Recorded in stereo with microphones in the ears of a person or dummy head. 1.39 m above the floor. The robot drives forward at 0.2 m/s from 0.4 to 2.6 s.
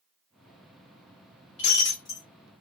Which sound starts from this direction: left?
Breaking glass, at 1.6 s.